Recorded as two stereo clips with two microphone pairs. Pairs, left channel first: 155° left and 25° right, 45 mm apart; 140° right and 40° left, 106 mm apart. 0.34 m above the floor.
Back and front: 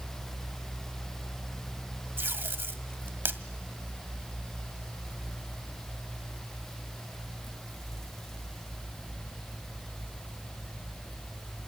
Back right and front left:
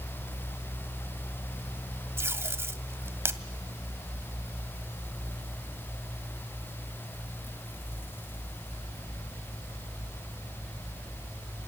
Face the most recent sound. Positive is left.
turn(degrees=-20)